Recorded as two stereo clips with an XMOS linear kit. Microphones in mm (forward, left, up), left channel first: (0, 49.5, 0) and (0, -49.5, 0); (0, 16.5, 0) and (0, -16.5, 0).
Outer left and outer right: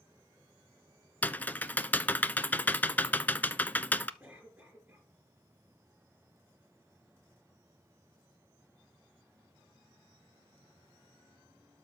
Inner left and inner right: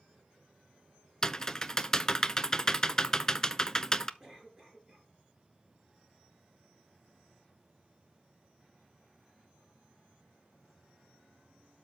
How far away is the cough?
About 5.5 m.